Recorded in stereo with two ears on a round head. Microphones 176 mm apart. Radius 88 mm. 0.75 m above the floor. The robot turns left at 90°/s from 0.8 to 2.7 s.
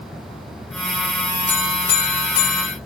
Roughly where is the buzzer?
Behind.